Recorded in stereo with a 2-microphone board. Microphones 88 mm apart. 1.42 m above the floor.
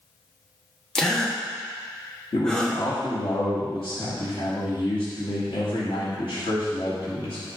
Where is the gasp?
10° left (ahead or behind), 1.3 m.